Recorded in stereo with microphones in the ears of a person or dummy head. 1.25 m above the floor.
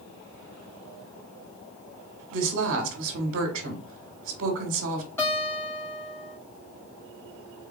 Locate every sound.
2.3 s a woman speaking: 65° right (ahead or behind), 1.2 m
5.2 s a guitar: 10° left (ahead or behind), 2.5 m